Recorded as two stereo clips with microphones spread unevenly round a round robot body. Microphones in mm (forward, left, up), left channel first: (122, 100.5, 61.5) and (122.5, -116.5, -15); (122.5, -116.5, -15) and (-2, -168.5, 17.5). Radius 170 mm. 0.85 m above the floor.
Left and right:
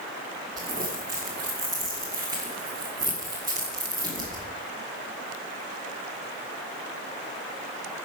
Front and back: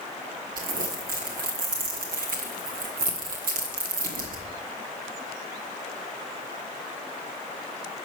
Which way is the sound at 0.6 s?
165° right.